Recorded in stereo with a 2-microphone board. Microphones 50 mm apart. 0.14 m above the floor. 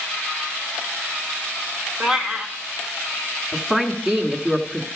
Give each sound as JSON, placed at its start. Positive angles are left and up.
{"t": 2.0, "sound": "a cat meowing", "side_deg": -10, "distance_m": 1.2}
{"t": 3.5, "sound": "a woman speaking", "side_deg": -10, "distance_m": 1.2}